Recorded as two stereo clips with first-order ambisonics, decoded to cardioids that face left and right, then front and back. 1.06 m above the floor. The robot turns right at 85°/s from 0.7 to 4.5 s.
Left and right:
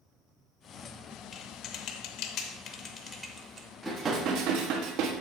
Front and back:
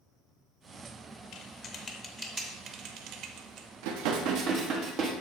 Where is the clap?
No clap in this recording.